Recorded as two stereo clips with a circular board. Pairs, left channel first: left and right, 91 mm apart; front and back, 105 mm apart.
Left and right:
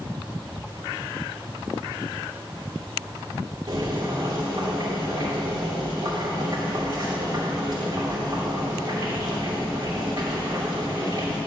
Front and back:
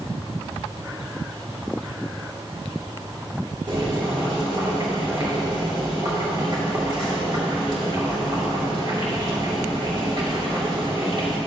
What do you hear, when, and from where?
3.7 s boiling: 135° right, 2.5 m